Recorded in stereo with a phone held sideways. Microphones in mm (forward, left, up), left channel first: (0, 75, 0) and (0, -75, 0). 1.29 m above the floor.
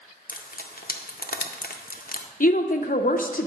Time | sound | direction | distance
0.3 | frying | 80° left | 0.6 m
2.4 | a woman speaking | 65° left (ahead or behind) | 0.6 m